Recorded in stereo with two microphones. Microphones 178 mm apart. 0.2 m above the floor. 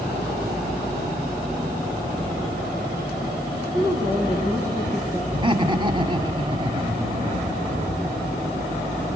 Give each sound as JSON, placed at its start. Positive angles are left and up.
{"t": 3.7, "sound": "a woman speaking", "side_deg": -20, "distance_m": 7.0}
{"t": 5.3, "sound": "laughter", "side_deg": -30, "distance_m": 1.8}